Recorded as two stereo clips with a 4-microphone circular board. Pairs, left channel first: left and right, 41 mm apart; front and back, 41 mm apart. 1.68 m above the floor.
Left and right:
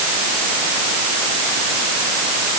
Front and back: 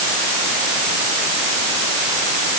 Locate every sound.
Only background noise.